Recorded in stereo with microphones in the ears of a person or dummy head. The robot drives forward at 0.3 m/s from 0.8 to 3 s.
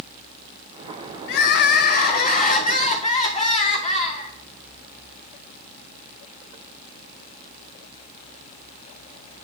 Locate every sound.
1.3 s crying: 60° left (ahead or behind), 0.5 m; by 4.3 s 30° left (ahead or behind), 0.9 m